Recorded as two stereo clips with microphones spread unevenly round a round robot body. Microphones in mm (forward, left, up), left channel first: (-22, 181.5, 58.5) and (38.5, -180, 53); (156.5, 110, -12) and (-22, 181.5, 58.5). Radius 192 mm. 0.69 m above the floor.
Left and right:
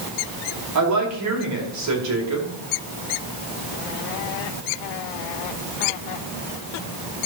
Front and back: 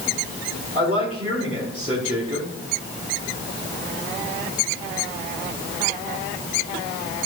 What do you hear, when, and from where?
0.8 s a woman speaking: 125° right, 2.5 m